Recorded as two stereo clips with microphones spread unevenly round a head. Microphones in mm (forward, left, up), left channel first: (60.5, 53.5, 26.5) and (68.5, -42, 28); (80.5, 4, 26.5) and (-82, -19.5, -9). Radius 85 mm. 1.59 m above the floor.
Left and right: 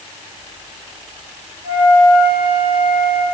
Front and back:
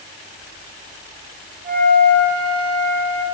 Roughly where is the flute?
Behind right.